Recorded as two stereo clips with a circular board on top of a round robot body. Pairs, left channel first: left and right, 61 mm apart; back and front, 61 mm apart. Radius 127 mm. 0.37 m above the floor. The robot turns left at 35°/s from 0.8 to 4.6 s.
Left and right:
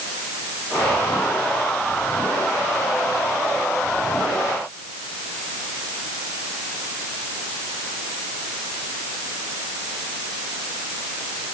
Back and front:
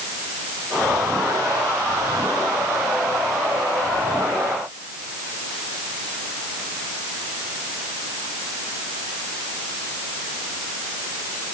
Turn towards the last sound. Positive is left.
No sound to turn to.